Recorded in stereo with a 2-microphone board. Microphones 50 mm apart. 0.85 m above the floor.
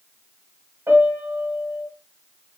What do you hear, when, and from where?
0.9 s a piano: 70° right (ahead or behind), 1.3 m